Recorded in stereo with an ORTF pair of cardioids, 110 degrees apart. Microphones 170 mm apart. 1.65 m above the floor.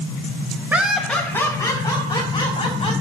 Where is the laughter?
10° right, 1.5 m; by 2.9 s 35° left, 3.5 m.